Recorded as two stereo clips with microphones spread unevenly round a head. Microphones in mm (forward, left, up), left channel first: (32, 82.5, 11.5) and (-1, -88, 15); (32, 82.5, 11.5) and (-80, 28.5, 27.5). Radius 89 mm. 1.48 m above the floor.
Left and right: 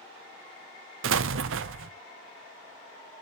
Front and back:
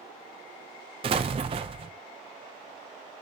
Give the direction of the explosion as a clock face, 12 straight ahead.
3 o'clock.